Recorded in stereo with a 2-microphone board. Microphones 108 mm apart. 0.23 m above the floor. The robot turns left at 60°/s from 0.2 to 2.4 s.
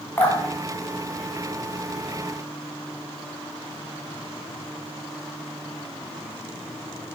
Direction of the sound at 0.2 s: 20° left (ahead or behind).